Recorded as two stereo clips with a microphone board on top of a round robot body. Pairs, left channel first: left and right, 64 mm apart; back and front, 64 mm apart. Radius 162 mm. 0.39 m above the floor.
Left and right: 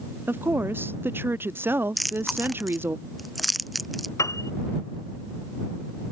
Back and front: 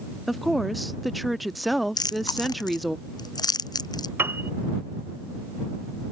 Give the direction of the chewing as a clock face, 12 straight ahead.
6 o'clock.